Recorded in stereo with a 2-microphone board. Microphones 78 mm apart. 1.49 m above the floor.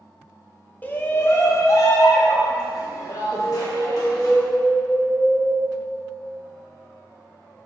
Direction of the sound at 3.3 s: 5° left (ahead or behind).